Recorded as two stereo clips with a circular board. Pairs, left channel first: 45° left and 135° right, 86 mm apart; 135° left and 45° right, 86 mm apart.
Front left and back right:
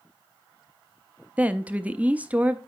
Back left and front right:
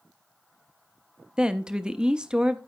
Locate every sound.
1.4 s a woman speaking: 105° right, 0.6 m